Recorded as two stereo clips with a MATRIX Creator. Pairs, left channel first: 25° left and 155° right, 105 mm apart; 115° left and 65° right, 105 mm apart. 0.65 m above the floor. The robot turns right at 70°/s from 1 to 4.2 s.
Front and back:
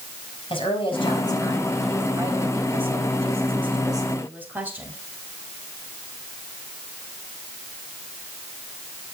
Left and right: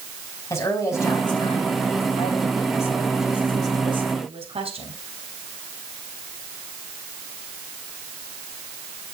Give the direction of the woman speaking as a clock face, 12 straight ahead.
10 o'clock.